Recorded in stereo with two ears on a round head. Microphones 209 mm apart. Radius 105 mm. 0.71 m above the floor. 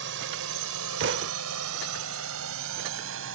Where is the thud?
50° right (ahead or behind).